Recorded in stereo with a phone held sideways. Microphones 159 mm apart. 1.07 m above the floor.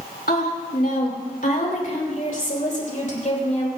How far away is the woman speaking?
About 2.5 m.